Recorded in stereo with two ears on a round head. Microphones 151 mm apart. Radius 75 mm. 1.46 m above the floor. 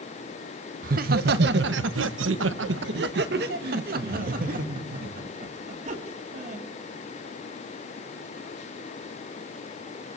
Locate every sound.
0.8 s laughter: 55° right (ahead or behind), 1.4 m; by 6.6 s 40° right (ahead or behind), 4 m